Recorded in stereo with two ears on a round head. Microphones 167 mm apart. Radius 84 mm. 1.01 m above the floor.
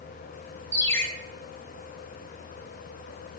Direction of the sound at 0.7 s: 10° left (ahead or behind).